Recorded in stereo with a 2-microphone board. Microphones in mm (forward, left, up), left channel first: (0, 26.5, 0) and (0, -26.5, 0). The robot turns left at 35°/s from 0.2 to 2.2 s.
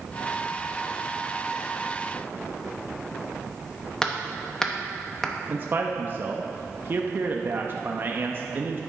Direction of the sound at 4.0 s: 10° left (ahead or behind).